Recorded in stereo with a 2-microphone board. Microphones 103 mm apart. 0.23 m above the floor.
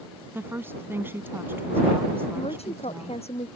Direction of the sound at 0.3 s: 20° right (ahead or behind).